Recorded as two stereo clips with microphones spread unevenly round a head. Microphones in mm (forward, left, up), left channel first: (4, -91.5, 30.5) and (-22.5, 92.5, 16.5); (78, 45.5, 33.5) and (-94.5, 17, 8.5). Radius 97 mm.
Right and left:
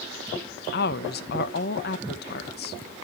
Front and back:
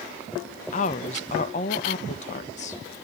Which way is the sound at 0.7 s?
45° right.